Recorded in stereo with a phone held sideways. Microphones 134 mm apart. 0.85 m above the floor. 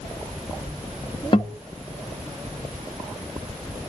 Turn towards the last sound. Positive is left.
turn(degrees=40)  # may be behind; listen again after turning